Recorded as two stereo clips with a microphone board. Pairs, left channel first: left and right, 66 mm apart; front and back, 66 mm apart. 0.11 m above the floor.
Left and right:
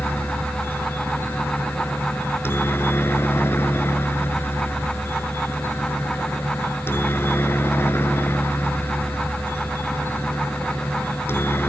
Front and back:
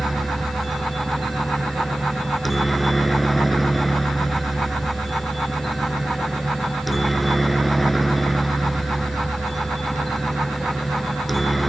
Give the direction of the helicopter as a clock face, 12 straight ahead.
9 o'clock.